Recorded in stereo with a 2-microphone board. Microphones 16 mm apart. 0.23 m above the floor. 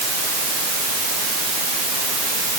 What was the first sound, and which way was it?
Only background noise.